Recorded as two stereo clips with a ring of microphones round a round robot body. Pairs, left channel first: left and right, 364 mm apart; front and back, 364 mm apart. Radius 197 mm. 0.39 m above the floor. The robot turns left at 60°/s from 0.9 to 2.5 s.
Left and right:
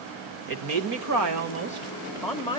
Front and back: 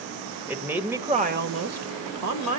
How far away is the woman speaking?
About 1.5 m.